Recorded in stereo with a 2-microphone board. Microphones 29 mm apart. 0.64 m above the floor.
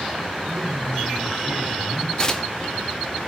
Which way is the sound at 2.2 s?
25° left (ahead or behind).